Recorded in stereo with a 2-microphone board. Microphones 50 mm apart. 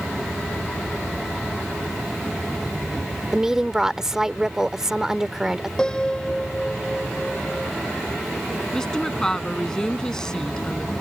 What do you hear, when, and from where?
3.3 s a woman speaking: 10° right (ahead or behind)
5.8 s a piano: 15° left (ahead or behind)
8.7 s a woman speaking: 15° left (ahead or behind)